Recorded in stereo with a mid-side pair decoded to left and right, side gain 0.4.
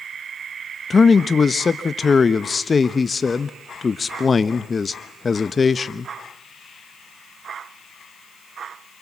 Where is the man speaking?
40° left, 1.0 m.